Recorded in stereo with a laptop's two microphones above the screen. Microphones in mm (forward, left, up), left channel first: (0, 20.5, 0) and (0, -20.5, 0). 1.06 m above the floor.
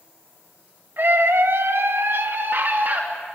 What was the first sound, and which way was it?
A scream, 55° right (ahead or behind).